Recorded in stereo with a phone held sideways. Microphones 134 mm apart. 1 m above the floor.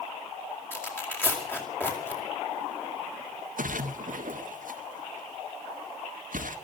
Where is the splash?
80° right, 1.8 m.